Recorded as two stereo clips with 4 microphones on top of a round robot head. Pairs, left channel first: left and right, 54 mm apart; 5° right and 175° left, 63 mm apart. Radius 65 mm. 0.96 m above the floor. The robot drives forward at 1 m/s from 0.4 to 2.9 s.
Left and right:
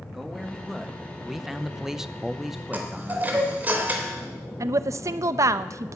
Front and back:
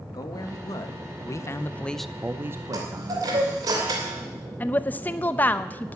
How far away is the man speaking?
About 1.7 m.